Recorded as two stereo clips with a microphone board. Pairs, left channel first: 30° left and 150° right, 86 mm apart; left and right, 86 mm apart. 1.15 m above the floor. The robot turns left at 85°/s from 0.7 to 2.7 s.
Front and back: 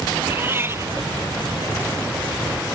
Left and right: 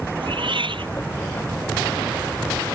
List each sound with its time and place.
0.2 s a cat meowing: 85° right; by 0.9 s 105° right